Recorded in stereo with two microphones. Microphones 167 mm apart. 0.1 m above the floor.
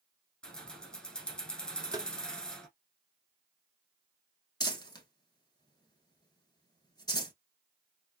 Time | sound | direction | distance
0.4 | keys jangling | 5° left (ahead or behind) | 1.2 m
1.9 | tapping | 25° right (ahead or behind) | 0.7 m
4.6 | crumpling | 25° left (ahead or behind) | 1.1 m